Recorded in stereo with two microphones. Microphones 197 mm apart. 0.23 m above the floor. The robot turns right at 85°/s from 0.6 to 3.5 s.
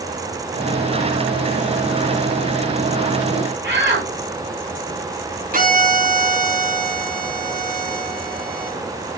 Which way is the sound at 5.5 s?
45° right (ahead or behind).